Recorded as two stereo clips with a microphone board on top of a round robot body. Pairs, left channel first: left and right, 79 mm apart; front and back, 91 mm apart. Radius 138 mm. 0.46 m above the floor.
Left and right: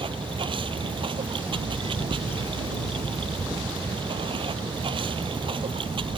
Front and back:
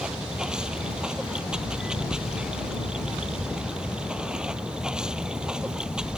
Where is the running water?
100° right.